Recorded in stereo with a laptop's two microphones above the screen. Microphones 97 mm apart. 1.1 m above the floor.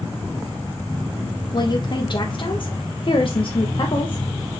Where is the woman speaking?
45° left (ahead or behind), 1.6 m.